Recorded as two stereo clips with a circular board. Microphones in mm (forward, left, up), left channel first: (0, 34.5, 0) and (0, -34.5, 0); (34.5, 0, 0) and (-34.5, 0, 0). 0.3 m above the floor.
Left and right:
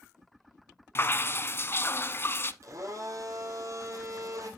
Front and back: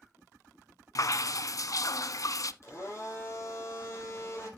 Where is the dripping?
35° left, 0.6 m.